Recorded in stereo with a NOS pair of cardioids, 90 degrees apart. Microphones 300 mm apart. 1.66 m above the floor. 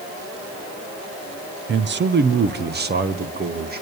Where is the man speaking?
40° right, 1.0 m; by 3.8 s 35° right, 2.5 m.